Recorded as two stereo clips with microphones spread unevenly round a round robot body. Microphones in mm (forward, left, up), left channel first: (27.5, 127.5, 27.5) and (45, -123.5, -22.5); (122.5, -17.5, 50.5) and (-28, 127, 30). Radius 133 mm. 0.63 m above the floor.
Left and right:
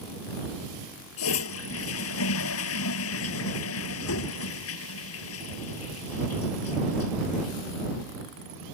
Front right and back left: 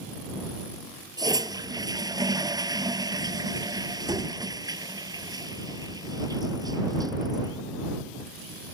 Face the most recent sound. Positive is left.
turn(degrees=65)